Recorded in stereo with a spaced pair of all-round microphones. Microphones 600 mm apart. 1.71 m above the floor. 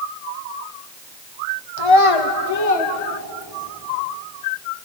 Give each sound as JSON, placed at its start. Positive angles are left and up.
{"t": 1.8, "sound": "a child speaking", "side_deg": 45, "distance_m": 0.9}